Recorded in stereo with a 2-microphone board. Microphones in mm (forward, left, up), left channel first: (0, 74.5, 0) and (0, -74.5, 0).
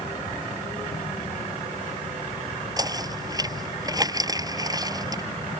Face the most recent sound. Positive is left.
turn(degrees=-25)  # may be behind; listen again after turning